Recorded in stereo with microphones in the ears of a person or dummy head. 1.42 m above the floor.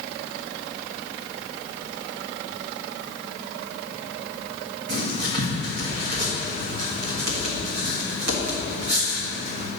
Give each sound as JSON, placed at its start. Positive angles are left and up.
{"t": 4.9, "sound": "writing", "side_deg": -55, "distance_m": 1.5}